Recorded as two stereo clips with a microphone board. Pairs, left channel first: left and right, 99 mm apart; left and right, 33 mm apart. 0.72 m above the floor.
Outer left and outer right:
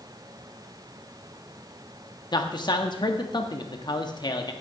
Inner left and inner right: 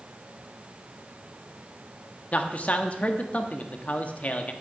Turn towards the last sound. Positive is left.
turn(degrees=50)  # may be behind; listen again after turning